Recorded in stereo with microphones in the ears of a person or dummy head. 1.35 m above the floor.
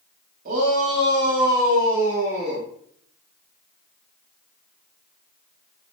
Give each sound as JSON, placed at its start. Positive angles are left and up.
{"t": 0.5, "sound": "a shout", "side_deg": -45, "distance_m": 3.0}